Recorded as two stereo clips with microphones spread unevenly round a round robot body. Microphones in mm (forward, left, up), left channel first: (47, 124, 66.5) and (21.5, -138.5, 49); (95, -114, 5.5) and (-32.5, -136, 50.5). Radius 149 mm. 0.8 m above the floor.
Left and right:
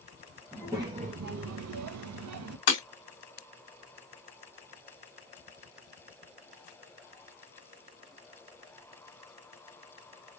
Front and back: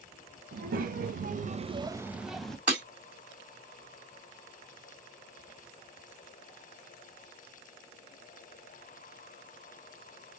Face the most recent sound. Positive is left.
turn(degrees=105)